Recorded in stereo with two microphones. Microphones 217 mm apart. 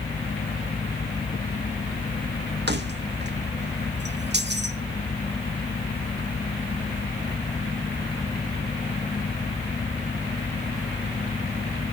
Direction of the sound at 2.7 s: 50° right (ahead or behind).